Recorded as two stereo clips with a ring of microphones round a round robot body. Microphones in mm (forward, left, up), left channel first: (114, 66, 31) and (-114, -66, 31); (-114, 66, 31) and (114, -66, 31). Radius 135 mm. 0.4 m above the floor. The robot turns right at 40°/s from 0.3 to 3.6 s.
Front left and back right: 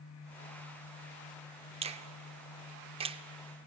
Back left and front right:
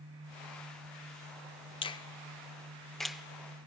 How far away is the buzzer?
No buzzer in this recording.